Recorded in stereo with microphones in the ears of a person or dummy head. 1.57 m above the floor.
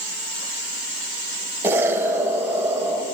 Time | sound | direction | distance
1.6 | an explosion | 15° right (ahead or behind) | 3 m